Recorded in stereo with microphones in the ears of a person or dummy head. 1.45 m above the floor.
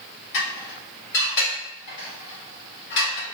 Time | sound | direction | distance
0.3 | dishes clattering | 70° left (ahead or behind) | 1.8 m